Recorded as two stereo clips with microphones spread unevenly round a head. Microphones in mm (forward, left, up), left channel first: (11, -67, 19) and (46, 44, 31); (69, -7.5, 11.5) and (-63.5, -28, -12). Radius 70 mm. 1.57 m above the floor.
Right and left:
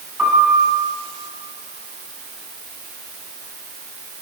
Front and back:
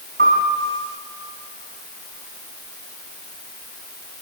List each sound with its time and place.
0.2 s a piano: 155° left, 6 m